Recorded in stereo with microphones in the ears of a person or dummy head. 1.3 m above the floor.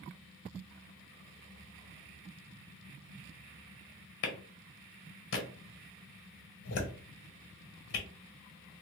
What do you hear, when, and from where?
4.2 s a clap: 70° left (ahead or behind), 1.3 m